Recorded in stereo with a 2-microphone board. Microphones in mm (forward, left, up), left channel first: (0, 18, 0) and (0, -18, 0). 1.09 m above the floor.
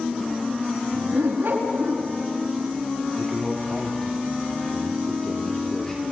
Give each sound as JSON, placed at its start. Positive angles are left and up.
{"t": 0.9, "sound": "a dog barking", "side_deg": -70, "distance_m": 4.5}
{"t": 3.2, "sound": "a man speaking", "side_deg": 20, "distance_m": 2.5}